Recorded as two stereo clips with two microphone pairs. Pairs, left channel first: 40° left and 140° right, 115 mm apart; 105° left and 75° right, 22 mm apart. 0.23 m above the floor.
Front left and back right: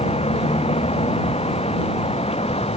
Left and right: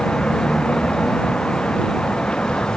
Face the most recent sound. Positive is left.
turn(degrees=70)